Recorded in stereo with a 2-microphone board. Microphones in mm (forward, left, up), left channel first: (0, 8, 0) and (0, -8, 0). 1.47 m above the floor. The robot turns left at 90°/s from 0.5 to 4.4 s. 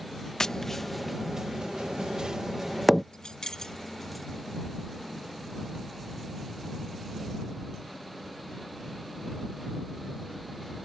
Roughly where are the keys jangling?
Left.